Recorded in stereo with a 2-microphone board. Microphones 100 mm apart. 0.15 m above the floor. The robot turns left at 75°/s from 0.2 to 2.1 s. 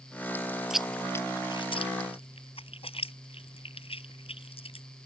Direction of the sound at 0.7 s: 5° right (ahead or behind).